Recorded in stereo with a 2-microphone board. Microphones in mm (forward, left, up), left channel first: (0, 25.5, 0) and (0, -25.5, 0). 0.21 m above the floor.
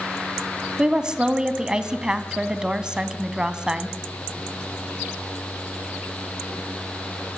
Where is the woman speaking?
15° right (ahead or behind), 1.6 m.